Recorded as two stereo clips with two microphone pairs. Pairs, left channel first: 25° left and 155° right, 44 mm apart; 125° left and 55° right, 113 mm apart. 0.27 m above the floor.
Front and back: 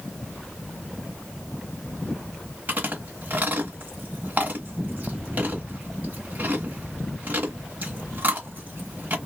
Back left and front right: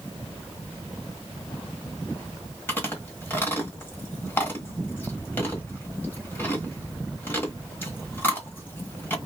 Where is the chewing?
170° right, 1.2 m.